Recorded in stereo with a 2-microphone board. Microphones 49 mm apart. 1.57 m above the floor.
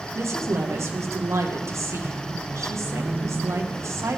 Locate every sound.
0.1 s a woman speaking: 70° right (ahead or behind), 1.0 m